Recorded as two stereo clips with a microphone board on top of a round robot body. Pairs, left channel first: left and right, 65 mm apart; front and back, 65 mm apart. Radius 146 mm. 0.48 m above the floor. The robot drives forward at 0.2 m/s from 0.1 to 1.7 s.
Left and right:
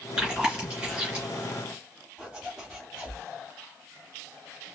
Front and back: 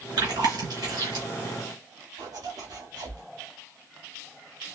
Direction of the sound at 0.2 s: 175° right.